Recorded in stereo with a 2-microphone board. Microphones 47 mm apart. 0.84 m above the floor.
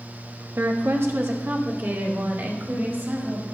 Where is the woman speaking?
60° right (ahead or behind), 1.1 m; by 3.4 s 50° right (ahead or behind), 5 m.